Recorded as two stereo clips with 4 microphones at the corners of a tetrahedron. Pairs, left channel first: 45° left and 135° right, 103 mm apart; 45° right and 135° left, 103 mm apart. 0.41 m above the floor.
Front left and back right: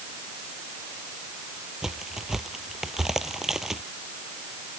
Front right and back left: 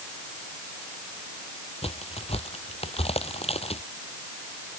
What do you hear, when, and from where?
1.8 s a crack: 50° right